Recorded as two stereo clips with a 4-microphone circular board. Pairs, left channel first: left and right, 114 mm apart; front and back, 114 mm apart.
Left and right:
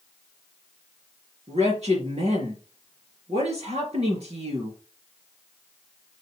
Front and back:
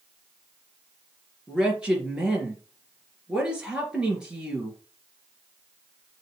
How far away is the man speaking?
About 3.5 m.